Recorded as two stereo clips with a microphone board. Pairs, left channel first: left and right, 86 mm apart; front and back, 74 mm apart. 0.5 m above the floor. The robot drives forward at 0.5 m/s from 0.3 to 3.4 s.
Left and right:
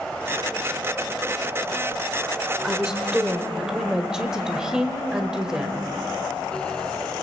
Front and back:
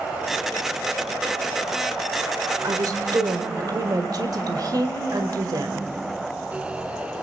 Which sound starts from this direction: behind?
A woman speaking, at 2.6 s.